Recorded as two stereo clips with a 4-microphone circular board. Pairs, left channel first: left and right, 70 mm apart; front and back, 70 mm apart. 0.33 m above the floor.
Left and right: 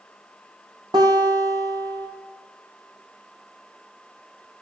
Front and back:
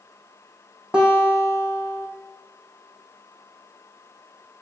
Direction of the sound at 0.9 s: 105° right.